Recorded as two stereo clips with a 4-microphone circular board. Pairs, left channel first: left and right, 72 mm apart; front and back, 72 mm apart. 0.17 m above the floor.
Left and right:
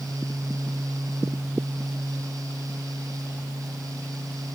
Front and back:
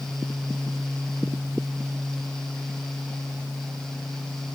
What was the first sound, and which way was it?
Only background noise.